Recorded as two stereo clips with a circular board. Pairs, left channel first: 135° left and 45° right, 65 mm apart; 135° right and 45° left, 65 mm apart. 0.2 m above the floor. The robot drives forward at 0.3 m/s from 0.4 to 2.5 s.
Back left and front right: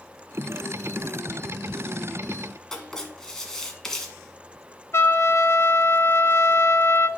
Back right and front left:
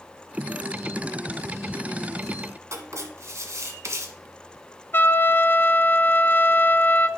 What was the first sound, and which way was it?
Writing, 55° left.